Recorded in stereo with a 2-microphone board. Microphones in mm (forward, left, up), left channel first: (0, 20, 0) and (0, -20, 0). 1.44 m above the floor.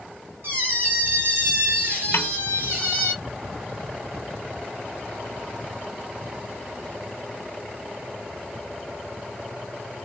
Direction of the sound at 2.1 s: 80° left.